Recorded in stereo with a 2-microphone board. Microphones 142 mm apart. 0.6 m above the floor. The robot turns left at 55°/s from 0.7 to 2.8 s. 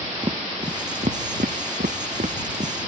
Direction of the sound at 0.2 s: 30° right (ahead or behind).